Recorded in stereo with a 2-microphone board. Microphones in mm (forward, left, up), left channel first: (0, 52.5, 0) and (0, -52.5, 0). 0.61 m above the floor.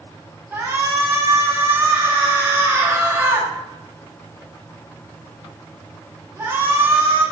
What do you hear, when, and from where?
0.5 s a shout: 20° right (ahead or behind), 1.3 m